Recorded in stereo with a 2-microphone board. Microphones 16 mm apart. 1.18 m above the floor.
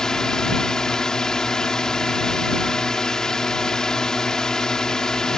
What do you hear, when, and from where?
0.0 s a drone: 35° left (ahead or behind)